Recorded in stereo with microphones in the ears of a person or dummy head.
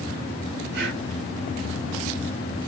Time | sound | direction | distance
0.7 | breathing | 70° right (ahead or behind) | 5 m